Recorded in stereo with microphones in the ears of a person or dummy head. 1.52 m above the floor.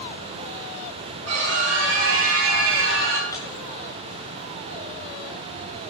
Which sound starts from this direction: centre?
Tearing paper, at 3.3 s.